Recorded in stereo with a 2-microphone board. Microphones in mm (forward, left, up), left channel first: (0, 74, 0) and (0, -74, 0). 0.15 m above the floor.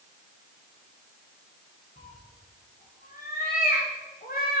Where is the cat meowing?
75° left (ahead or behind), 4 m; by 4.6 s 85° left, 2.5 m.